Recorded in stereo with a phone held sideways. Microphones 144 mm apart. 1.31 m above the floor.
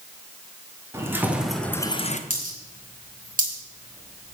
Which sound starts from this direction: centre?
Keys jangling, at 0.9 s.